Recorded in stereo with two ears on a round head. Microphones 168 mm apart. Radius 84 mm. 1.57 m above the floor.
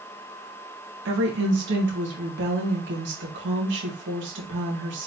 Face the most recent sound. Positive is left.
turn(degrees=-65)  # may be behind; listen again after turning